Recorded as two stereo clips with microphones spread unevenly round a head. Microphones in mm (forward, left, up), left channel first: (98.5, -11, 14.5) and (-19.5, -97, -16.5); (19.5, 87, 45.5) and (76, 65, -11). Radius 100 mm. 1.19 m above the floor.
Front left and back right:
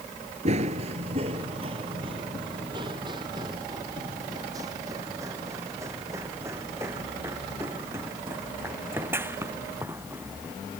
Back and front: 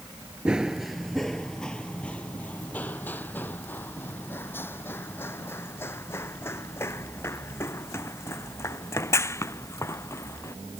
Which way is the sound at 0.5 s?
175° left.